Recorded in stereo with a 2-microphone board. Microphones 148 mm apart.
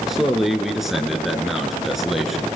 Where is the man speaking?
Centre (ahead or behind), 2.5 m.